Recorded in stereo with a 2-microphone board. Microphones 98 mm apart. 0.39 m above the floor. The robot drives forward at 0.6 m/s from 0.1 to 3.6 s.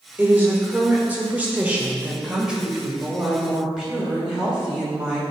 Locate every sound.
0.2 s a woman speaking: 15° right (ahead or behind), 1.1 m; by 5.2 s 10° right (ahead or behind), 2 m